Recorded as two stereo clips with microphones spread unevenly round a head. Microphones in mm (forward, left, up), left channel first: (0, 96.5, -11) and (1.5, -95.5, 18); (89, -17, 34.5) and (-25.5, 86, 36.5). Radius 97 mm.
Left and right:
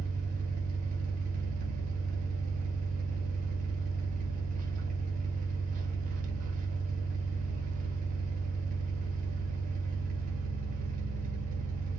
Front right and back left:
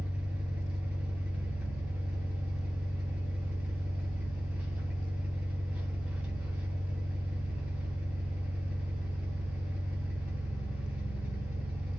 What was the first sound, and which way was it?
An engine running, 140° right.